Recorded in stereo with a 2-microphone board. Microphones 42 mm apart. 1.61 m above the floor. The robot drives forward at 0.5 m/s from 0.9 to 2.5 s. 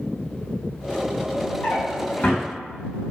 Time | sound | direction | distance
1.6 | a drawer | 30° left (ahead or behind) | 1.1 m